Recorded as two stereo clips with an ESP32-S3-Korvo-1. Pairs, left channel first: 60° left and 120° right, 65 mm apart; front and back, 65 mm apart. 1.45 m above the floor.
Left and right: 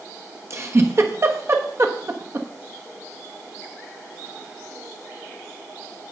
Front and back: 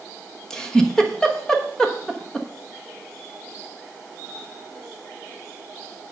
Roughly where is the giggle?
Right.